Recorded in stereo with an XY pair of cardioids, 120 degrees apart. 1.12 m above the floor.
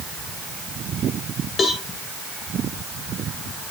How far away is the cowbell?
About 2 m.